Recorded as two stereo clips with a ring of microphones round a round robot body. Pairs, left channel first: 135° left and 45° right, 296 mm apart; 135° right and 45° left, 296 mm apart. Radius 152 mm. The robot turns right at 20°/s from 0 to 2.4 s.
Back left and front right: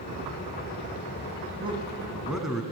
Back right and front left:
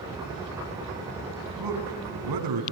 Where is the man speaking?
30° left, 4.5 m; by 2.6 s 45° left, 4.5 m.